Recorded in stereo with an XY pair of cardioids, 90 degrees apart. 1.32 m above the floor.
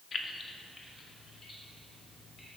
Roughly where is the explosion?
No explosion in this recording.